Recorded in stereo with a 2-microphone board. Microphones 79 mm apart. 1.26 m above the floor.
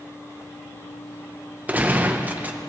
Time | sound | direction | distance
1.7 | a gunshot | 20° right (ahead or behind) | 0.9 m